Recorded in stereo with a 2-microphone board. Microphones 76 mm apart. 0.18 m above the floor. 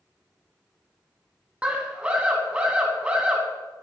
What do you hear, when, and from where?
1.6 s a scream: 15° right (ahead or behind), 1.2 m